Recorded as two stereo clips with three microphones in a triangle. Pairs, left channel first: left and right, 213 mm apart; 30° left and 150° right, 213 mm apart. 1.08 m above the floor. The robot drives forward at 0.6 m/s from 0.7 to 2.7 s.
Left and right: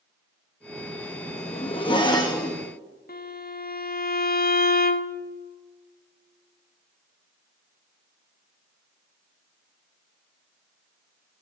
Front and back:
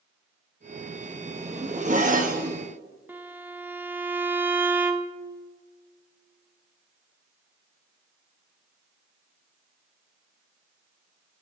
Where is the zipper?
150° left, 1.0 m; by 2.7 s 165° left, 1.7 m.